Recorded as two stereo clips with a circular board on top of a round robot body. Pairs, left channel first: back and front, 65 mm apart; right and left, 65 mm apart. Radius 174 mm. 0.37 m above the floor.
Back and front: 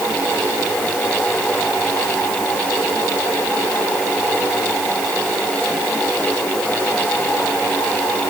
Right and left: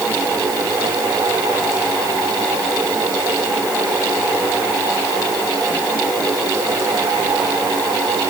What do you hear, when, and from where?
Only background noise.